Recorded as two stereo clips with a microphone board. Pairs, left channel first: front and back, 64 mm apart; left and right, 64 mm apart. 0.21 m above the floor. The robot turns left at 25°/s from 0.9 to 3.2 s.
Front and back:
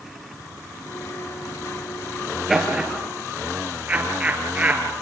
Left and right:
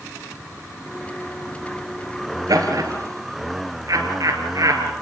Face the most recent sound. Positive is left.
turn(degrees=-115)